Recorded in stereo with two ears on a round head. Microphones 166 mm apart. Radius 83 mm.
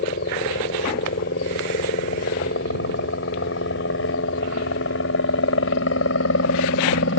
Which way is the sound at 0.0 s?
55° left (ahead or behind).